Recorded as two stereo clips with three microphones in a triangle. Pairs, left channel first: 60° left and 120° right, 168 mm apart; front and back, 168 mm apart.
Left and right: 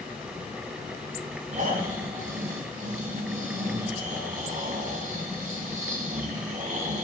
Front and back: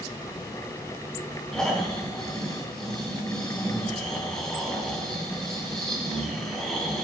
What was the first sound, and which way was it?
Snoring, 85° right.